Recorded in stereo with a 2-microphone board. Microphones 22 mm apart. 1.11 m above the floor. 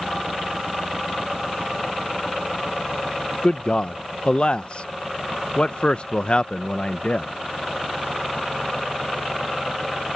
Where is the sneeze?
No sneeze in this recording.